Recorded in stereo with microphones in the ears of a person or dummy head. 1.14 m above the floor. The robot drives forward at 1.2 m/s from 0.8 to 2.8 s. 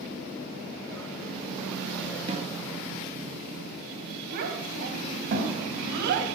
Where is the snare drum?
35° right (ahead or behind), 1.9 m; by 2.6 s 45° right (ahead or behind), 1.7 m.